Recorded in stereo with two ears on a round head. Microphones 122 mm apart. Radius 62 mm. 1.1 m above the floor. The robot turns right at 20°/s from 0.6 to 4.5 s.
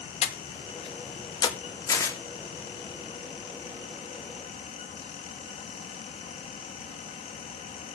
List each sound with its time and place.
0.2 s breathing: 50° left (ahead or behind), 1.2 m; by 1.6 s 30° left (ahead or behind), 1.2 m
1.9 s tearing paper: 25° left (ahead or behind), 1.8 m; by 2.2 s 20° left (ahead or behind), 1.8 m